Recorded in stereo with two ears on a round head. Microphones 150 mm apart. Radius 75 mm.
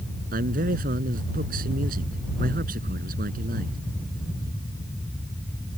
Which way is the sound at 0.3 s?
50° right (ahead or behind).